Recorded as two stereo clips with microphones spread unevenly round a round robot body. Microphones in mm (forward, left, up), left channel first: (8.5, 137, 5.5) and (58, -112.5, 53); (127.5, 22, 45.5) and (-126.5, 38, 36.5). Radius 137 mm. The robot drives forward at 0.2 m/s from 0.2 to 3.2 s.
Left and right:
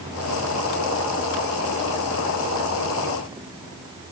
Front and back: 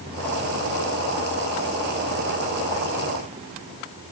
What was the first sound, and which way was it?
Only background noise.